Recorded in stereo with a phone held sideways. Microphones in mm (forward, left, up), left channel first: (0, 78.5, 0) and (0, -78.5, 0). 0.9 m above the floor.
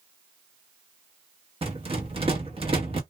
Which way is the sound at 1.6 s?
35° right (ahead or behind).